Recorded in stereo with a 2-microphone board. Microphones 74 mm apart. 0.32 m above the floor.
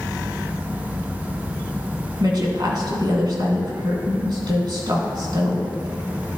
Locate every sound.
2.2 s a woman speaking: 65° right (ahead or behind), 2.5 m